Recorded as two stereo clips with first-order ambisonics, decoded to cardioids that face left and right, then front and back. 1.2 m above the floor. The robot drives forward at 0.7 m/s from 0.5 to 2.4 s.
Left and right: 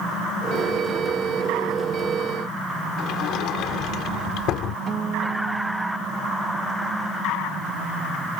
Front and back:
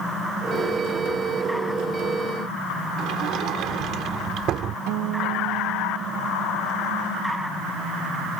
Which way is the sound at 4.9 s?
160° right.